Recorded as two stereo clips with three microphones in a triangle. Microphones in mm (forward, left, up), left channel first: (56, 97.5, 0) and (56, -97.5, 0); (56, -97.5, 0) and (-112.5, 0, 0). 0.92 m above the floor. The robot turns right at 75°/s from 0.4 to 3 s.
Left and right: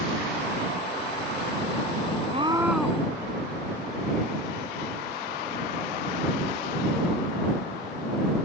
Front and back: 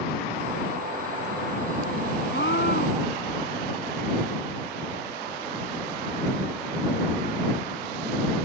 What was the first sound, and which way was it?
A scream, 35° right.